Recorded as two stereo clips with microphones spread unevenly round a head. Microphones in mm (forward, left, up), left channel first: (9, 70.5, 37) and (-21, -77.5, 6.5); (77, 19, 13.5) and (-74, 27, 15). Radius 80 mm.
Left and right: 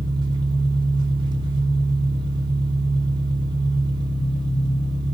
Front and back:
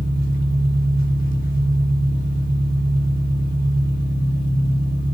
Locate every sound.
0.0 s an engine running: 40° right, 4 m